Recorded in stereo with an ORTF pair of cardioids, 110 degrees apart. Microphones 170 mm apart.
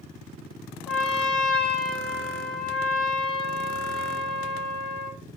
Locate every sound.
0.9 s a trumpet: 5° left, 0.9 m